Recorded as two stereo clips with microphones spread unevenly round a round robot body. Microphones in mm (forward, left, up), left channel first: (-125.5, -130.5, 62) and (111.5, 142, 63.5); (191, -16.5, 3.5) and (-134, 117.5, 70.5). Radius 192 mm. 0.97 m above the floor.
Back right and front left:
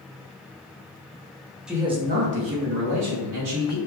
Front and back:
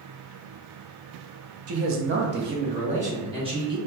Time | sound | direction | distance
1.7 | a man speaking | 135° left | 0.6 m